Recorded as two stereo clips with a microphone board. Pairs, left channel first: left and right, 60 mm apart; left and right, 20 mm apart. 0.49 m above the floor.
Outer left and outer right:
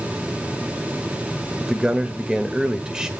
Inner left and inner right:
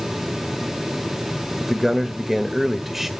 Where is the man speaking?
10° right (ahead or behind), 1.3 m.